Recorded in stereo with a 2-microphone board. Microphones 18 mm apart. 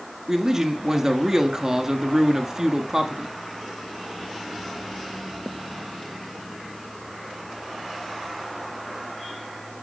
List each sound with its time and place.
0.3 s a man speaking: 25° right (ahead or behind), 1.2 m